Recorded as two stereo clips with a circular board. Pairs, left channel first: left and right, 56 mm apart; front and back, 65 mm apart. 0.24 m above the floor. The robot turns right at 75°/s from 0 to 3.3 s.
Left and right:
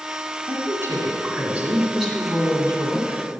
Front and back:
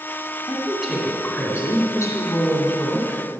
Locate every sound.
0.5 s a woman speaking: 125° right, 2 m; by 3.2 s 80° left, 2 m